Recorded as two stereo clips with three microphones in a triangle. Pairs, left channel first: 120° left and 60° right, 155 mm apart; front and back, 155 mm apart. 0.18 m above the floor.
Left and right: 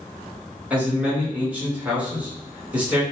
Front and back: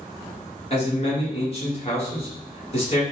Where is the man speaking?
15° left, 1.4 m.